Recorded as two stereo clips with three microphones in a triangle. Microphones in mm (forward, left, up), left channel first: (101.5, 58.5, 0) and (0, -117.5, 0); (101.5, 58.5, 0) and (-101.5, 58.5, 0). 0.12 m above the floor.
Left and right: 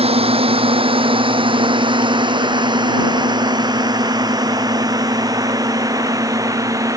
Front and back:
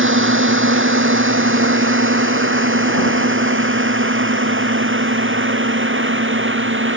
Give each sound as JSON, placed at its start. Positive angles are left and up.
{"t": 0.0, "sound": "a drone", "azimuth_deg": 180}